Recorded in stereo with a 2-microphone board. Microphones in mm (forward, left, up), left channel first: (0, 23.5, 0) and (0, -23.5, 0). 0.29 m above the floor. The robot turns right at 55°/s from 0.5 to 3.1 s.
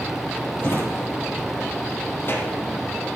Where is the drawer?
45° left (ahead or behind), 4 m; by 2.6 s 25° left (ahead or behind), 4 m.